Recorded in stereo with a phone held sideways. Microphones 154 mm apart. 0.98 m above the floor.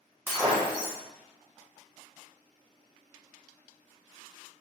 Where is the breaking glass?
10° right (ahead or behind), 1.7 m.